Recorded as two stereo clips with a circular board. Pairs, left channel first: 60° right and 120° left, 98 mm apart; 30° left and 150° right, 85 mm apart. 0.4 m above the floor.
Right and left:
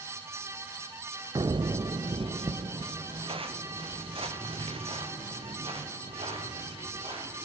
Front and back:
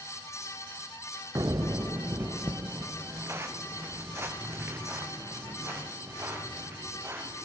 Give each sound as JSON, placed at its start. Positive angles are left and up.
{"t": 1.4, "sound": "footsteps", "azimuth_deg": 165, "distance_m": 0.8}